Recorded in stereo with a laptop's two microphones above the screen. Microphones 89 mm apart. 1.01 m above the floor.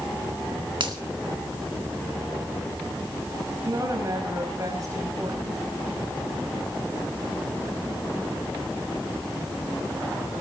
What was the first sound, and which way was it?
A finger snap, 65° right (ahead or behind).